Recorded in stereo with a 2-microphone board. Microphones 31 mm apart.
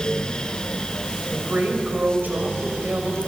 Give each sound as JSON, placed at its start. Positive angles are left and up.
{"t": 1.3, "sound": "a woman speaking", "side_deg": -75, "distance_m": 4.5}